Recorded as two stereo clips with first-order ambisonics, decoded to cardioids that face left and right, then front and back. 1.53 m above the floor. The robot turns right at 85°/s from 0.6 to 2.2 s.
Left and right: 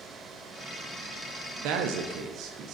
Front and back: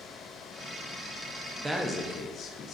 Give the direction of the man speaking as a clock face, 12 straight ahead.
3 o'clock.